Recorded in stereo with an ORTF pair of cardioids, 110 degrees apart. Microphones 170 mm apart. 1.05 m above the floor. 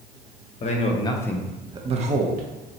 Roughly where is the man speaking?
Ahead left.